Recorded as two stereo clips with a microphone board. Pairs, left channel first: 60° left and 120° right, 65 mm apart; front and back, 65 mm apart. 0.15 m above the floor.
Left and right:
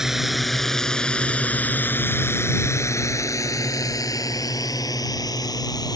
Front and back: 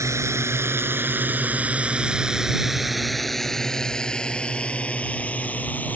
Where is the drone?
160° left; by 6.0 s 65° left.